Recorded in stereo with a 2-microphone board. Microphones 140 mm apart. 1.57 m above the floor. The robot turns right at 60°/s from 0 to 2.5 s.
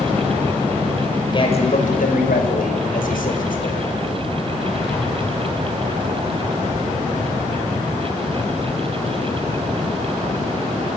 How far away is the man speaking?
About 6 m.